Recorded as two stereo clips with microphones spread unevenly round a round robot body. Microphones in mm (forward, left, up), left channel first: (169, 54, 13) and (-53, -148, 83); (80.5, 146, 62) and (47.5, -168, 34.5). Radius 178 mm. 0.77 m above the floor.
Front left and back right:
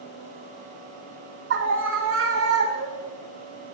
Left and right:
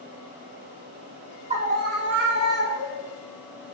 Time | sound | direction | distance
1.5 | a scream | 115° right | 1.0 m